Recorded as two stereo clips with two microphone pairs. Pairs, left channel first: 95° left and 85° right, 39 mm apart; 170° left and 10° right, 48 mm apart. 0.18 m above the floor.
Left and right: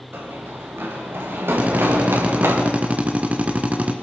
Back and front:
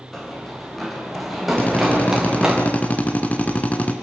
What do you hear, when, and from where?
0.1 s running footsteps: 105° right, 7 m; by 2.6 s 80° right, 5 m
1.6 s a drill: 135° right, 2 m